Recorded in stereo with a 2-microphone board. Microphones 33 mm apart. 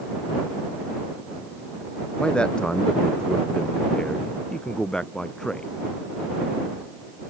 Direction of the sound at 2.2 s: 30° left (ahead or behind).